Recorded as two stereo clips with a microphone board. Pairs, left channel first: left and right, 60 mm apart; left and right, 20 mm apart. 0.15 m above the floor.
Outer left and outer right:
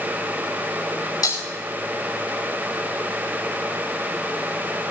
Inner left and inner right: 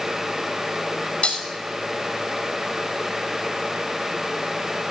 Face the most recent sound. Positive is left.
turn(degrees=90)